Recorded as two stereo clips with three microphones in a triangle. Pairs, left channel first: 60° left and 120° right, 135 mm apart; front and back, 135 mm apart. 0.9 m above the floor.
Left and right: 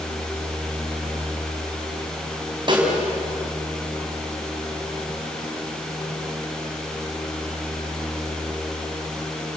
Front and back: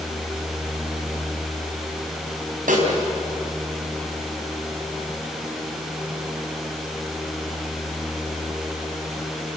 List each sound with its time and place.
2.7 s a snare drum: 175° right, 5.5 m